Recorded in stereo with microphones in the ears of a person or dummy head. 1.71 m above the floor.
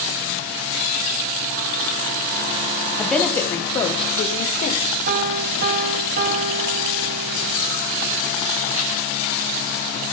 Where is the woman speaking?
Centre (ahead or behind), 1.1 m; by 4.8 s 50° left (ahead or behind), 1.3 m.